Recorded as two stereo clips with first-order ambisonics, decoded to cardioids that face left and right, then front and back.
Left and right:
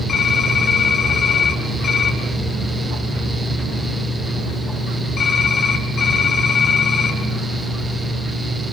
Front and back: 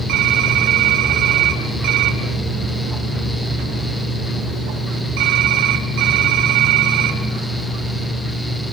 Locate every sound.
0.1 s typing on a keyboard: 155° left, 2.5 m